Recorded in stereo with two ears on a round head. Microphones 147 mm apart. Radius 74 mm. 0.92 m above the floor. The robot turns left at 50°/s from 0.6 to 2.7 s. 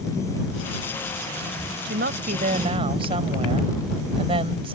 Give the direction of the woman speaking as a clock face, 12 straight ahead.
3 o'clock.